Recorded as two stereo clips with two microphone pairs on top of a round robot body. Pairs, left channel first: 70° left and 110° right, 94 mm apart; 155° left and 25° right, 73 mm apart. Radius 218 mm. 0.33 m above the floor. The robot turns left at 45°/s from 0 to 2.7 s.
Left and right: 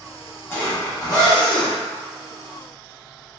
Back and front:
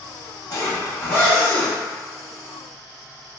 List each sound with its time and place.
0.5 s a zipper: 125° left, 1.5 m; by 3.4 s 30° left, 1.5 m